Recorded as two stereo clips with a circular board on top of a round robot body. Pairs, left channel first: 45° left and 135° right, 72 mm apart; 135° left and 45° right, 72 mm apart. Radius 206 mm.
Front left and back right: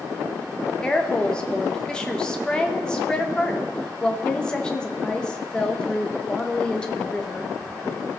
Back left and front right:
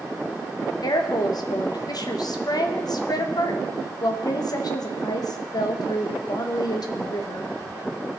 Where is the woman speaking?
120° left, 1.3 m.